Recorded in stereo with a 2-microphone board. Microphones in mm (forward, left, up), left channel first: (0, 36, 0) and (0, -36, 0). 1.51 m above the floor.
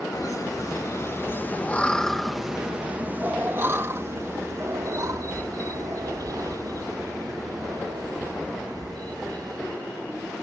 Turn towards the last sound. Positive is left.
turn(degrees=-65)  # may be behind; listen again after turning